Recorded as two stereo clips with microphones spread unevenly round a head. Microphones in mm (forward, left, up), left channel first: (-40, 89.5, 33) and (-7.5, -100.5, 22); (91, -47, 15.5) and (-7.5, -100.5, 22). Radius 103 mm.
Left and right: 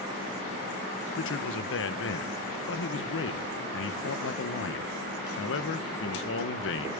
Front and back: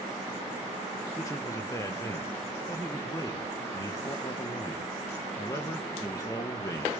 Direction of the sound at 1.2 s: 95° left.